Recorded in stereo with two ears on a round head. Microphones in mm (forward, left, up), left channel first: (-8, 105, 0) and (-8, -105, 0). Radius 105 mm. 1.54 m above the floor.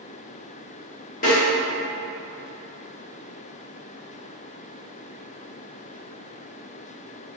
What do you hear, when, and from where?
1.2 s a snare drum: 30° left (ahead or behind), 1.4 m